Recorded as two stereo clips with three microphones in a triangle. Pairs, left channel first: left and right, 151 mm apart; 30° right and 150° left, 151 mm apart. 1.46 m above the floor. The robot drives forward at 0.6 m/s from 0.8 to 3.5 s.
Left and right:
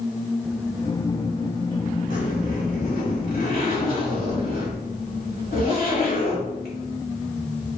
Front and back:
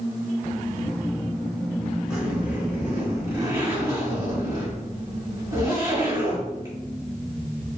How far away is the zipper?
About 3 m.